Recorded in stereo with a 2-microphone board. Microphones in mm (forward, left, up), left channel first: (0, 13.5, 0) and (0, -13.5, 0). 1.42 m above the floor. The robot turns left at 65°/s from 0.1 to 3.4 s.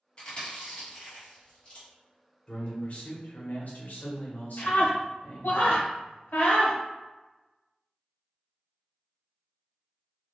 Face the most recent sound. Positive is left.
turn(degrees=80)